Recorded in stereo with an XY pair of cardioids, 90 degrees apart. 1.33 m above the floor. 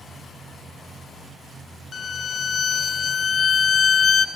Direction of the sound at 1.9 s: 55° left.